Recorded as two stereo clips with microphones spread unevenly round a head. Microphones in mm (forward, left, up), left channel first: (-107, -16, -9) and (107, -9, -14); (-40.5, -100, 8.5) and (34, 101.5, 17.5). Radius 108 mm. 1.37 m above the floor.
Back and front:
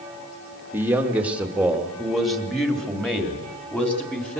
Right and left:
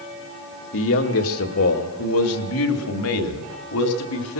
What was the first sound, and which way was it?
A man speaking, 75° right.